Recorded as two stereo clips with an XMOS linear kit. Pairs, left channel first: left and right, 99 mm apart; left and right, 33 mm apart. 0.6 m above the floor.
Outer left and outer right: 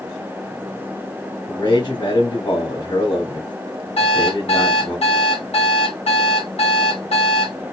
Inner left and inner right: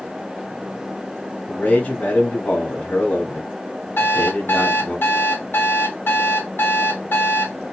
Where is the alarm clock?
90° left, 1.8 m.